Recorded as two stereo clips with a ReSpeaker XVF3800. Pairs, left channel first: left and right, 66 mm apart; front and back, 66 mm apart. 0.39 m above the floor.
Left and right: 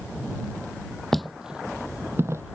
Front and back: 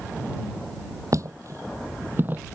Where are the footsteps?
175° left; by 2.4 s 125° right.